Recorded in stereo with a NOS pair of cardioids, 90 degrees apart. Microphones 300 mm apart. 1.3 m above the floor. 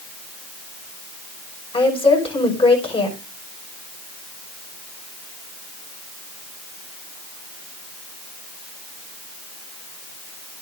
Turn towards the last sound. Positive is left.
turn(degrees=15)